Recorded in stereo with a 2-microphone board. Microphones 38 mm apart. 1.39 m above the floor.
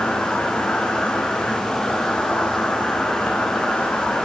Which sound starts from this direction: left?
An insect, at 0.0 s.